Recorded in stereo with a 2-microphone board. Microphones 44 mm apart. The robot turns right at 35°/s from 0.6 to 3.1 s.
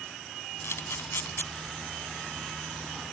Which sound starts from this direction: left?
A camera shutter, at 0.6 s.